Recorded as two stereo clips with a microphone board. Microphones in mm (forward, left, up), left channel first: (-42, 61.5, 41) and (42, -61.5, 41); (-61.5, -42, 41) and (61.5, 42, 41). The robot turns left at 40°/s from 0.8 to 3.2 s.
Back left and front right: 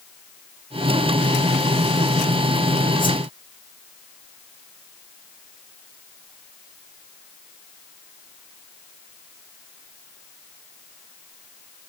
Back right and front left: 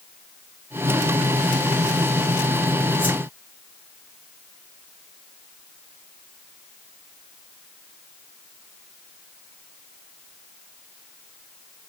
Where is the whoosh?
170° left, 1.0 m; by 3.2 s 165° left, 1.0 m.